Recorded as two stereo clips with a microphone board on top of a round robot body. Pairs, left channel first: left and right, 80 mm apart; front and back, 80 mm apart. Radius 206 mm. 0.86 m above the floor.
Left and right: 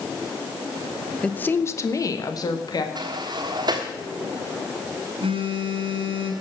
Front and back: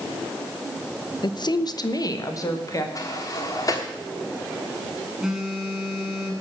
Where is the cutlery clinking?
I don't hear cutlery clinking.